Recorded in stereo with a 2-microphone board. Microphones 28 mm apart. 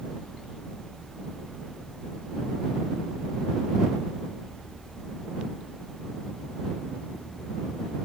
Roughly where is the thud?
No thud in this recording.